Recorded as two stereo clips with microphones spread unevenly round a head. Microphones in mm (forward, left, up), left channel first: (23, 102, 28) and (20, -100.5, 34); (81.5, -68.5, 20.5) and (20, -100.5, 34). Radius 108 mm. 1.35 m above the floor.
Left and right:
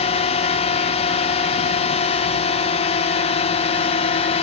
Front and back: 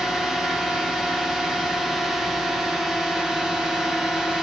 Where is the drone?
110° left.